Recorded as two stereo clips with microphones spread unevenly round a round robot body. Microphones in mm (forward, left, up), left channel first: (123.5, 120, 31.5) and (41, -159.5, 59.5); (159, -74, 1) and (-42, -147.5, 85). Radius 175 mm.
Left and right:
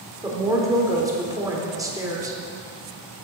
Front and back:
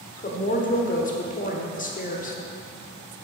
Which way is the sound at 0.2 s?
25° right.